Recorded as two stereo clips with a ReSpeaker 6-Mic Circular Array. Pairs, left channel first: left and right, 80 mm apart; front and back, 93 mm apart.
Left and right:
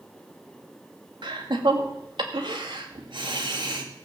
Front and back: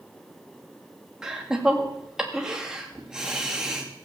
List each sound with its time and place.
1.2 s laughter: 95° right, 2.5 m